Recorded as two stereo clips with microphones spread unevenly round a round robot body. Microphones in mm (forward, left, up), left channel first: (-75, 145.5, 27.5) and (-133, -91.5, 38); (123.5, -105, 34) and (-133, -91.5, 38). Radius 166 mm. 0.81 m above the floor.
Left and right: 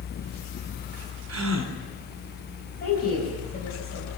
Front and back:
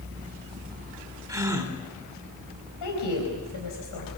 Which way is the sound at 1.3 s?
105° right.